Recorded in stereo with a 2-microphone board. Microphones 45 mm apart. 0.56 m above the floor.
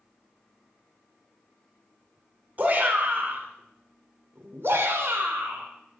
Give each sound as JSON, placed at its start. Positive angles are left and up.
{"t": 2.6, "sound": "a shout", "side_deg": -40, "distance_m": 2.0}